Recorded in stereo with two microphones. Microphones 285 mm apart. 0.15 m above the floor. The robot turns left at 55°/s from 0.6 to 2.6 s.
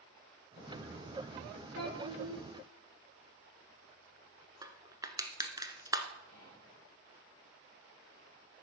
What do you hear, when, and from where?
1.8 s a child speaking: 85° right, 1.7 m; by 2.4 s 120° right, 1.7 m
4.6 s crushing: 15° right (ahead or behind), 0.9 m
6.3 s whispering: 65° right (ahead or behind), 3.5 m